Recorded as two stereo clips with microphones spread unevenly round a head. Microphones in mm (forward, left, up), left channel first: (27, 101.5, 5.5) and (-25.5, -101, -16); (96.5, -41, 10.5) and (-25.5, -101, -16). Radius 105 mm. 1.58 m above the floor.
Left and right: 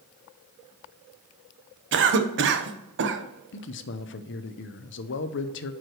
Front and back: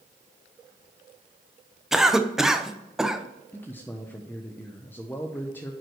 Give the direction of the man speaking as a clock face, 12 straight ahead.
9 o'clock.